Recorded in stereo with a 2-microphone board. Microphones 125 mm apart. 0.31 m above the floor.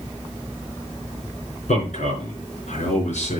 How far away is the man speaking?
About 4.5 m.